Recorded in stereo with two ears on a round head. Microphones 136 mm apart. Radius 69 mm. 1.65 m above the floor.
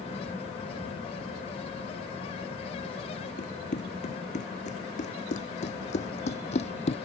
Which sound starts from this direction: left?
Running footsteps, at 3.4 s.